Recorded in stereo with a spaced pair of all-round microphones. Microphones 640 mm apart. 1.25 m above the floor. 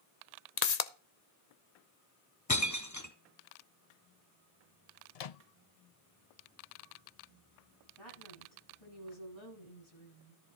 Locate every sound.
0.6 s a pop: 85° left, 0.9 m
2.5 s breaking glass: 25° left (ahead or behind), 1.2 m
5.2 s a microwave: 70° left (ahead or behind), 0.7 m
8.0 s a woman speaking: 45° left (ahead or behind), 9 m